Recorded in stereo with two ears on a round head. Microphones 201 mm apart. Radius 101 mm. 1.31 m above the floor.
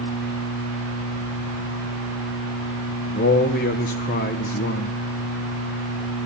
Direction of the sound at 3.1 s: 35° left (ahead or behind).